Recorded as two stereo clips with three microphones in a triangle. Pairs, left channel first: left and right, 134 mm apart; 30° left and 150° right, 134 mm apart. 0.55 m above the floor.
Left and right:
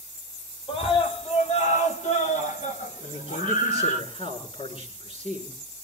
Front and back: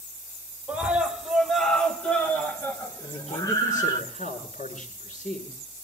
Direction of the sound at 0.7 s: 130° left.